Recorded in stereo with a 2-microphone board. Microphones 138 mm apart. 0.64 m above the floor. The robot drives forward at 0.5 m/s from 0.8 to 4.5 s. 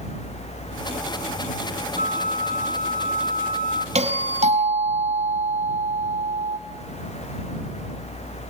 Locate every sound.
2.0 s a flute: 75° right (ahead or behind), 1.6 m; by 3.9 s 65° right (ahead or behind), 1.7 m
4.0 s a doorbell: 55° right (ahead or behind), 4.5 m; by 6.6 s 60° right (ahead or behind), 4.5 m